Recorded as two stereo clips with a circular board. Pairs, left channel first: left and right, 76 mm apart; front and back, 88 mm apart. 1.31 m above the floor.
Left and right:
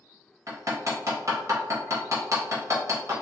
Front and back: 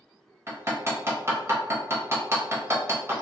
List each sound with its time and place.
0.5 s hammering: 125° right, 0.9 m